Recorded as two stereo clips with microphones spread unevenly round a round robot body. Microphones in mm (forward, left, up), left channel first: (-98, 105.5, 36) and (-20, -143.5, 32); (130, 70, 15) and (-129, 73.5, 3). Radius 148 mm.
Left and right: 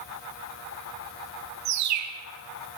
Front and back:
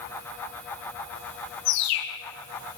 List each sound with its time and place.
1.6 s a bird: 40° right, 2.0 m